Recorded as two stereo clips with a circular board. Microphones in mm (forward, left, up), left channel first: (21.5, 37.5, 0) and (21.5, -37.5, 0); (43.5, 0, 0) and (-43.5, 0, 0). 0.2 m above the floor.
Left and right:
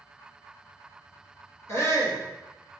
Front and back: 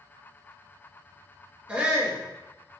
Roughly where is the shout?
Left.